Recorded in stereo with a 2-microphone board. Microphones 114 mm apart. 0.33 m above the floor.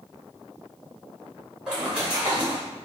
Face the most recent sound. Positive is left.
turn(degrees=-10)  # may be behind; listen again after turning